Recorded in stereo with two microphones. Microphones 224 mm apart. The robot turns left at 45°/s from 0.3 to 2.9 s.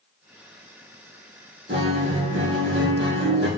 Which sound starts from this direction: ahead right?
A guitar, at 1.7 s.